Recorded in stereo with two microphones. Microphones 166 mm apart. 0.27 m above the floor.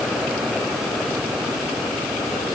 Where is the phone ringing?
I don't hear a phone ringing.